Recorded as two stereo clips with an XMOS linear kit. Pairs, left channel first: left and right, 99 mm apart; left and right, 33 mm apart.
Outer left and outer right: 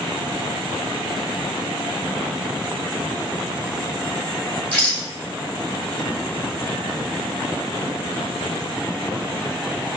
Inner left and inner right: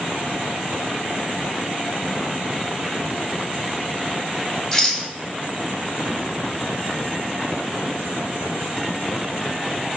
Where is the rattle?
15° left (ahead or behind), 1.6 m.